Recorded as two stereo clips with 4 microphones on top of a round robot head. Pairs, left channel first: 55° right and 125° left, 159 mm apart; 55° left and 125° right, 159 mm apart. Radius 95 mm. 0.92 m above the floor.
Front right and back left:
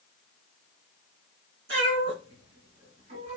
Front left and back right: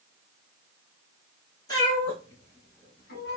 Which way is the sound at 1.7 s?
120° left.